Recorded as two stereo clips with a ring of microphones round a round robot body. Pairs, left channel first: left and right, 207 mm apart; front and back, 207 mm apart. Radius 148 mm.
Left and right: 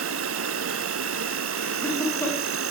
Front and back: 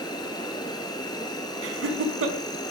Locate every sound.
0.0 s an insect: 75° right, 1.2 m
1.6 s laughter: 175° left, 5 m